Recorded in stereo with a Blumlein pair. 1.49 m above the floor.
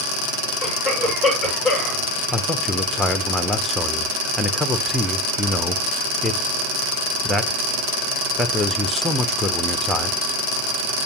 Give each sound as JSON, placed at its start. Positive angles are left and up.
{"t": 0.6, "sound": "a cough", "azimuth_deg": -25, "distance_m": 8.0}
{"t": 2.3, "sound": "a man speaking", "azimuth_deg": 5, "distance_m": 0.9}